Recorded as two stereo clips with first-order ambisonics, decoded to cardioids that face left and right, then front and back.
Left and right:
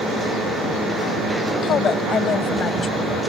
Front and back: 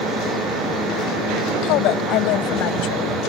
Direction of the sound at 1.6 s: 30° left.